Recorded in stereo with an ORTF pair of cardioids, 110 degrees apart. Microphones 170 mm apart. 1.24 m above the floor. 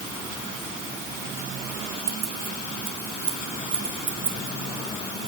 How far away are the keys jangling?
About 3 m.